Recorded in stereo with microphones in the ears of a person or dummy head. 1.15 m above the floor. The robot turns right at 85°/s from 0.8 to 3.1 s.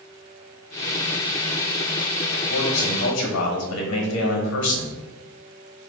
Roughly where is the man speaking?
Ahead left.